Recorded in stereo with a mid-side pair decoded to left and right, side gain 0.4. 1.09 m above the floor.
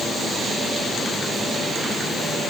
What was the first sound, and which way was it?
Only background noise.